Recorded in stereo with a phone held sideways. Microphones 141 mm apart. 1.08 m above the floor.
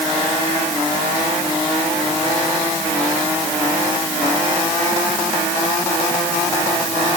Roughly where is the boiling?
I don't hear boiling.